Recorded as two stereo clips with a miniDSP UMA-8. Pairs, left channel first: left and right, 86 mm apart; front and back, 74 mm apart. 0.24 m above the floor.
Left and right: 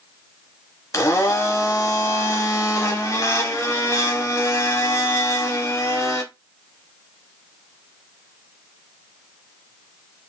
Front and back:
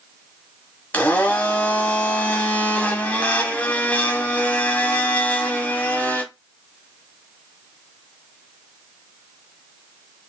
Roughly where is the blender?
Ahead left.